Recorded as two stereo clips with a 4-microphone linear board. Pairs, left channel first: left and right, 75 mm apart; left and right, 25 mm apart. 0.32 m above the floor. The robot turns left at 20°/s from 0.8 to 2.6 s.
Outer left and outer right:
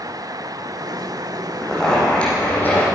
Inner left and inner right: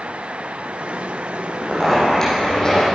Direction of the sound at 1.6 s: 5° left (ahead or behind).